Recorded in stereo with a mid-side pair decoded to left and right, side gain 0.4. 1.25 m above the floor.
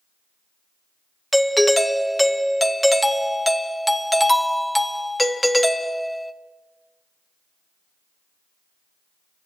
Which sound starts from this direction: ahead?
A doorbell, at 1.3 s.